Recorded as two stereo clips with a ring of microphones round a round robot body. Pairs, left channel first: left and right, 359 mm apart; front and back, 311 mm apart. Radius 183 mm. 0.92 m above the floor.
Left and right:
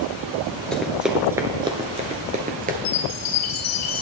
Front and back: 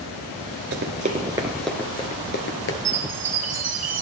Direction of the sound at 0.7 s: 175° left.